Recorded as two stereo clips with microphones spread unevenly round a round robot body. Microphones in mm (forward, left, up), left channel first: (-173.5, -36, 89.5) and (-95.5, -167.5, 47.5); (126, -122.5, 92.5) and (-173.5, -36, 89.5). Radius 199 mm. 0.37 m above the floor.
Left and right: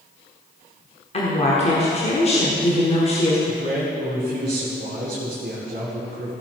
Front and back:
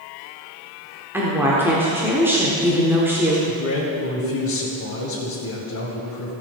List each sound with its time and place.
1.1 s a woman speaking: 90° left, 1.5 m
3.5 s a man speaking: 40° right, 2.5 m